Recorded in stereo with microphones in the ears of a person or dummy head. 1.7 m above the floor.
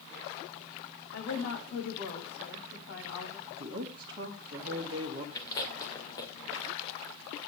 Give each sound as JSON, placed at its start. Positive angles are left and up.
{"t": 1.1, "sound": "a woman speaking", "side_deg": 70, "distance_m": 5.5}
{"t": 3.5, "sound": "a woman speaking", "side_deg": -20, "distance_m": 2.5}
{"t": 5.3, "sound": "chewing", "side_deg": 25, "distance_m": 2.5}